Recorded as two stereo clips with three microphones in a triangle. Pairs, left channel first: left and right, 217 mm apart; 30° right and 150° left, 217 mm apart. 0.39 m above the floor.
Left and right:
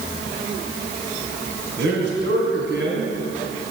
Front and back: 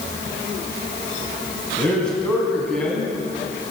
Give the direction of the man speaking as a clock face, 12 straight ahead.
4 o'clock.